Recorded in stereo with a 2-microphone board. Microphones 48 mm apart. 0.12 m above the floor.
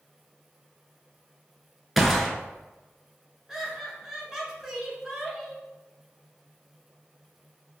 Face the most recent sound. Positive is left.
turn(degrees=-10)  # may be behind; listen again after turning